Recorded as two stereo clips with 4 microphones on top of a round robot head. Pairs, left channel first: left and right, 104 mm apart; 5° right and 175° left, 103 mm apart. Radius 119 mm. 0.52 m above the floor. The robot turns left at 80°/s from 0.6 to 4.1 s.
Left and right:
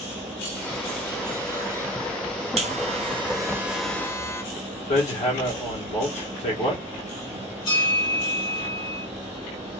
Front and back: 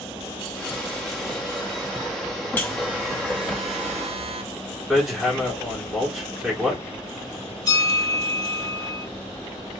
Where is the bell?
45° left, 2.5 m.